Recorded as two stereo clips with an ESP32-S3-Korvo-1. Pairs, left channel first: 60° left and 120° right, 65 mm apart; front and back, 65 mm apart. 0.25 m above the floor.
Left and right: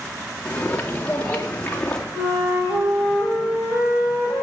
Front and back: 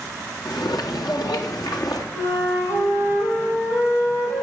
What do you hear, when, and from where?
0.5 s footsteps: 10° right, 2 m; by 2.0 s 15° right, 3 m
2.1 s a flute: 55° right, 7.5 m